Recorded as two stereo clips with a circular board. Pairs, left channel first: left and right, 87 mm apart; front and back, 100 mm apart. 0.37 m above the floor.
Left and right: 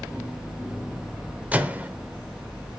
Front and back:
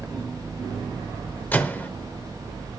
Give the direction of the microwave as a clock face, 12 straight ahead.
1 o'clock.